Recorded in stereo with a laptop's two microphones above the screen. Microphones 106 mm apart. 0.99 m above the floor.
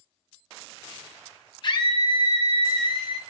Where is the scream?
45° left (ahead or behind), 0.7 m.